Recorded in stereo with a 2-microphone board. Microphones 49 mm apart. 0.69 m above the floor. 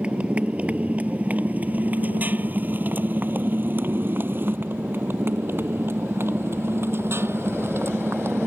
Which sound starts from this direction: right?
A motorcycle, at 0.0 s.